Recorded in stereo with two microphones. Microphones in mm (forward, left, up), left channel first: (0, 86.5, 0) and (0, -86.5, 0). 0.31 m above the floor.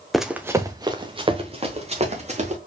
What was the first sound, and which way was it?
Running footsteps, centre (ahead or behind).